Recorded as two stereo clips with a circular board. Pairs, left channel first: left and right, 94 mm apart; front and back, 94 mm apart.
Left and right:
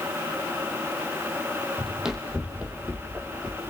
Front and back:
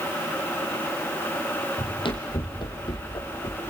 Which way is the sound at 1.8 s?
5° right.